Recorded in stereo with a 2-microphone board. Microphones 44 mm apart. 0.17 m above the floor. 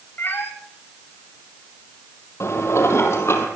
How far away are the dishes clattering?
About 3 m.